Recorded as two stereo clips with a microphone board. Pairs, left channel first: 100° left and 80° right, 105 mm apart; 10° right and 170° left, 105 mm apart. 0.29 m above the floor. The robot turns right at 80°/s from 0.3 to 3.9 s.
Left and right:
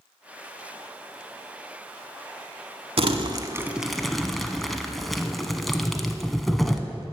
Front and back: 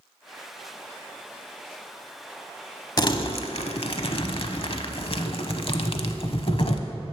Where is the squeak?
I don't hear a squeak.